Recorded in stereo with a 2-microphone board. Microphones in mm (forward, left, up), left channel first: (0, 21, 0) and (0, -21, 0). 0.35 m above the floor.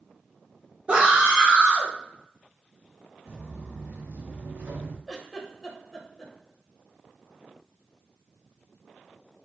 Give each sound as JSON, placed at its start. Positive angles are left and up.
{"t": 0.9, "sound": "a scream", "side_deg": -25, "distance_m": 0.9}
{"t": 3.2, "sound": "footsteps", "side_deg": -10, "distance_m": 1.3}
{"t": 5.1, "sound": "a giggle", "side_deg": 0, "distance_m": 0.9}